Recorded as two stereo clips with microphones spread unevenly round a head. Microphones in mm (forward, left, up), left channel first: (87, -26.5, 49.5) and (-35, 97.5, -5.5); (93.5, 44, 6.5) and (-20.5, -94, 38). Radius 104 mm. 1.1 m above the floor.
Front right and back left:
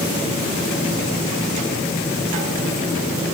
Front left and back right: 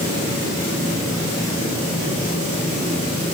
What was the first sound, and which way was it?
Only background noise.